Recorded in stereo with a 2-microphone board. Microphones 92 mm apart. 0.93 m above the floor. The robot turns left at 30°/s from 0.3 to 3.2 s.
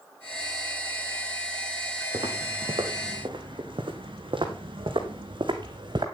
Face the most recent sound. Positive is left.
turn(degrees=-60)  # may be behind; listen again after turning